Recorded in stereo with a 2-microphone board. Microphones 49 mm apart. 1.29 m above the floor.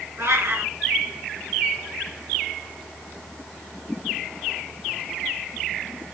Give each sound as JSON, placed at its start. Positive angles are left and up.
{"t": 0.2, "sound": "a cat meowing", "side_deg": -60, "distance_m": 2.5}